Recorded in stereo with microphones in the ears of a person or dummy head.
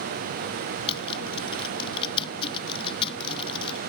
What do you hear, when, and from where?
0.9 s typing on a keyboard: 35° left (ahead or behind)